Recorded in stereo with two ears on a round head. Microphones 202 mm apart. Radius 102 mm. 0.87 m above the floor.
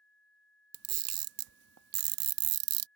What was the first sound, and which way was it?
A camera shutter, 80° right.